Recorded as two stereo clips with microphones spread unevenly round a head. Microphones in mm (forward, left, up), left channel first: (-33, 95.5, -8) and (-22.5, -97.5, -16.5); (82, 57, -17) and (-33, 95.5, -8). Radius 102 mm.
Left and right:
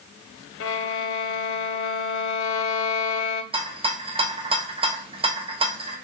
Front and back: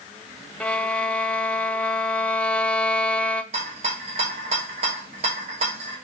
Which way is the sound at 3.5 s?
150° right.